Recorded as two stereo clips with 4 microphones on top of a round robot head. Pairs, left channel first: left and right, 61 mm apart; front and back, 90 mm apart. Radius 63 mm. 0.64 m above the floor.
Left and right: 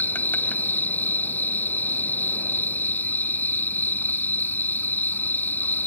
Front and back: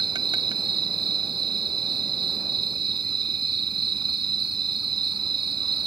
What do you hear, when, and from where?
0.0 s an insect: 150° left